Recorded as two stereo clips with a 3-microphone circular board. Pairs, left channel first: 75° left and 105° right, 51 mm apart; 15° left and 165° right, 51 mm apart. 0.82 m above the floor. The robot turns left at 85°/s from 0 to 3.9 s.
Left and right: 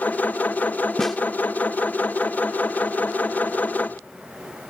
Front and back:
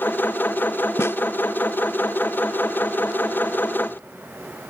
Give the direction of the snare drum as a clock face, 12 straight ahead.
12 o'clock.